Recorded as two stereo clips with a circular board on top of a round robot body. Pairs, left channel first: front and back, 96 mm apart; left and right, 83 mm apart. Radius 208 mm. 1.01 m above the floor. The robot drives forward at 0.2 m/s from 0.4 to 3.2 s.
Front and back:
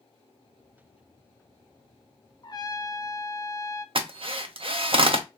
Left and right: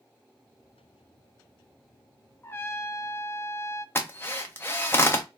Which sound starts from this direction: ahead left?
A trumpet, at 2.4 s.